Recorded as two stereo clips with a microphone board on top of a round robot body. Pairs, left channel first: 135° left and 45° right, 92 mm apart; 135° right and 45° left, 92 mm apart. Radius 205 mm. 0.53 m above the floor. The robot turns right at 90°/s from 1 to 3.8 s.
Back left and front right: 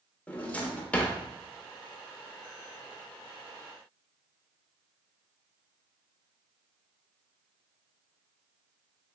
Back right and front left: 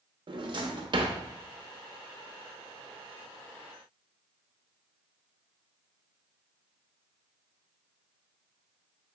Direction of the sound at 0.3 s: 65° left.